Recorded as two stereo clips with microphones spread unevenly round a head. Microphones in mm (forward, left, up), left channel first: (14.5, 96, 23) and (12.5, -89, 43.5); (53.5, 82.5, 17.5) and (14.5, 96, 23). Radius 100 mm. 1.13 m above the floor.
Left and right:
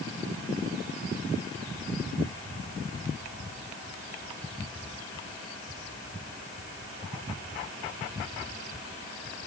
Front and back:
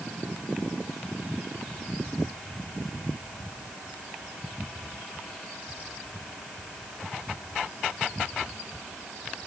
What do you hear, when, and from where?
Only background noise.